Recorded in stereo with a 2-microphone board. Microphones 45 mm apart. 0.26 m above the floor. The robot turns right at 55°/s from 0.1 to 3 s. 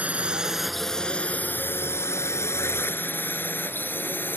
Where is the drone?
30° right (ahead or behind); by 4.4 s 45° left (ahead or behind).